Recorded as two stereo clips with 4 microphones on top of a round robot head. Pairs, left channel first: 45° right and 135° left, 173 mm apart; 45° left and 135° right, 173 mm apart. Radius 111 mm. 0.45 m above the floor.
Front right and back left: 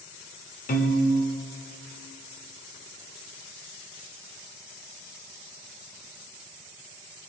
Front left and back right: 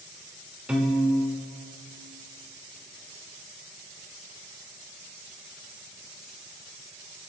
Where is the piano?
50° right, 1.2 m.